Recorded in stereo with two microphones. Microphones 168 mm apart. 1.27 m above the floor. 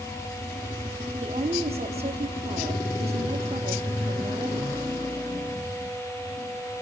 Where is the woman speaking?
40° right (ahead or behind), 3.5 m.